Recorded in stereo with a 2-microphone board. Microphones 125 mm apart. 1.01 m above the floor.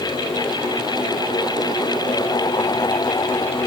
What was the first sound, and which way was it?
Only background noise.